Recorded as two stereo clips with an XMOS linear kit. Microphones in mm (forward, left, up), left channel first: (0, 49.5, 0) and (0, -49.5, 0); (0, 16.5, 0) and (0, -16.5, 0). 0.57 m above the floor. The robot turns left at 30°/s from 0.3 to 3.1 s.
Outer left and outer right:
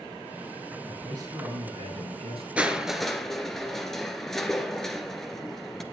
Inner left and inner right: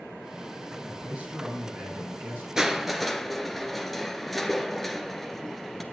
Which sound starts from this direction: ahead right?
A man speaking, at 0.8 s.